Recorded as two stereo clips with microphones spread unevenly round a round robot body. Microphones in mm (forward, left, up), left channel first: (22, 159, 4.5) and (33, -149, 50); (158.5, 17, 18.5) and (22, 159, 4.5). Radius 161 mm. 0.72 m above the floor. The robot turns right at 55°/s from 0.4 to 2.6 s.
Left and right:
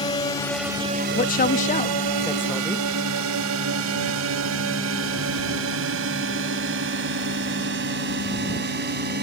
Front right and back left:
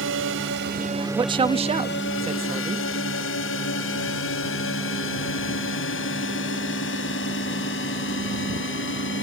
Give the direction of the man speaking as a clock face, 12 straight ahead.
9 o'clock.